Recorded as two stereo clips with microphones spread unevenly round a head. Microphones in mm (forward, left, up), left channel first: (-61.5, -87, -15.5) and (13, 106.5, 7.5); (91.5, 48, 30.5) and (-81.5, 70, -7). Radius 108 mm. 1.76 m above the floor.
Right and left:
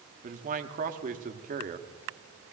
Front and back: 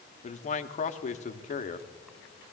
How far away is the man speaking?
About 0.8 m.